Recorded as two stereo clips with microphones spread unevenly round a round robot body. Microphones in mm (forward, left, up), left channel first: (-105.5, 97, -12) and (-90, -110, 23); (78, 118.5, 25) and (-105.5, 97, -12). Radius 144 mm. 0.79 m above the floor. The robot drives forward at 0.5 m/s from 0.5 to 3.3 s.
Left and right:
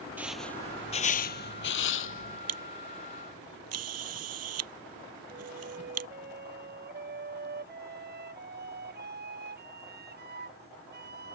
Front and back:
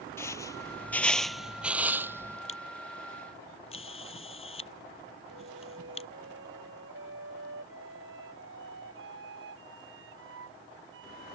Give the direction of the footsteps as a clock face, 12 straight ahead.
1 o'clock.